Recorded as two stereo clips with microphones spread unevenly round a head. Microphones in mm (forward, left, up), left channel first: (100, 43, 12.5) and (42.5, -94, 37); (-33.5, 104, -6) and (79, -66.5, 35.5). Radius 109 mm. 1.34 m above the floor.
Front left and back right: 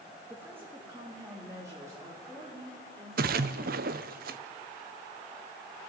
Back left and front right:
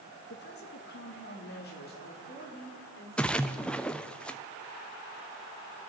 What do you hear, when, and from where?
0.3 s a woman speaking: 165° left, 2 m; by 3.8 s 175° left, 7 m
3.2 s a splash: 155° right, 0.6 m